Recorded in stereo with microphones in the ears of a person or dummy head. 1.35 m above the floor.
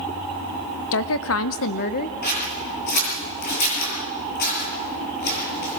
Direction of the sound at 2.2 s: 60° left (ahead or behind).